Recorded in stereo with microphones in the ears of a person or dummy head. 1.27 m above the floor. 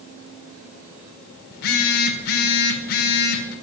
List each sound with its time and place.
1.5 s a phone buzzing: 50° left (ahead or behind), 1.5 m